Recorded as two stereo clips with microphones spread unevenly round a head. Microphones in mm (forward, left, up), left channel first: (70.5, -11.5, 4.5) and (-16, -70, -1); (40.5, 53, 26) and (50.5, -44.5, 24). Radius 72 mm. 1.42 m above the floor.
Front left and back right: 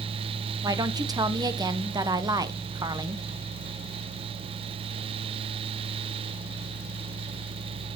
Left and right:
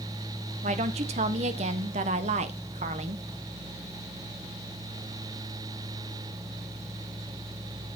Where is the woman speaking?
95° right, 1.0 m.